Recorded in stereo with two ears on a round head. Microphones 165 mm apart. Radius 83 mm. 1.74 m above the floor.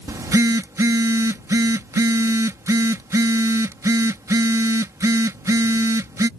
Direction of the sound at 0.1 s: 15° right (ahead or behind).